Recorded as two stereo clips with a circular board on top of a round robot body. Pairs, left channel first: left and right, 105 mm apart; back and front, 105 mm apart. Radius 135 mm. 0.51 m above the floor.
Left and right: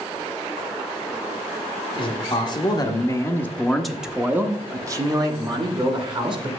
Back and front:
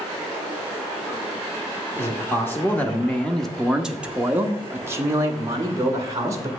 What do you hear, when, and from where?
2.0 s a man speaking: 120° left, 1.3 m; by 6.5 s 55° right, 1.7 m